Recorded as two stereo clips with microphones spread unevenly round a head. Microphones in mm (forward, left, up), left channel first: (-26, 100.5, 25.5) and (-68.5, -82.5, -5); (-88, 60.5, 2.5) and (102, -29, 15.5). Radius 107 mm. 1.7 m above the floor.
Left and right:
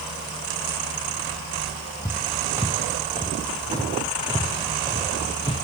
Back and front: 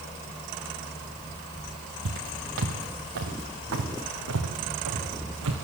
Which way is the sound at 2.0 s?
20° right.